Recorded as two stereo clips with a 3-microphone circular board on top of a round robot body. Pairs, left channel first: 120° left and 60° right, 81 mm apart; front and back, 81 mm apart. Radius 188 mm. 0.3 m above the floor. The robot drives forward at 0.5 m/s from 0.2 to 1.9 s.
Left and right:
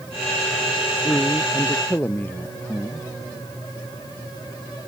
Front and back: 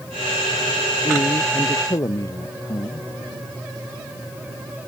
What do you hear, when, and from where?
1.0 s a man speaking: 50° left